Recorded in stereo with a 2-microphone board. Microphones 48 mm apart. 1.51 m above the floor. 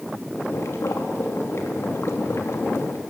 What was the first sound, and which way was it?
Boiling, 80° left.